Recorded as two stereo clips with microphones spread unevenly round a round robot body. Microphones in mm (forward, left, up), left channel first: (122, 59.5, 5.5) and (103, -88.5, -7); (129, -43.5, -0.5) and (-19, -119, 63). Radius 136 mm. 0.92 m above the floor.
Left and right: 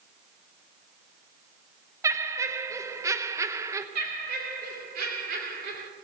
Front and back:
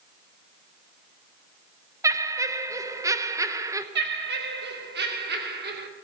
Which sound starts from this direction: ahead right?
Laughter, at 2.0 s.